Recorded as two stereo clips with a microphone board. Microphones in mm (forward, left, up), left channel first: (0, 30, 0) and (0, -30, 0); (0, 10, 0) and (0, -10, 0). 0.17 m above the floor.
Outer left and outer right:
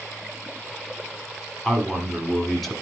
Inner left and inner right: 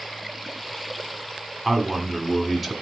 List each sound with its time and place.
1.6 s a man speaking: 5° left (ahead or behind), 1.6 m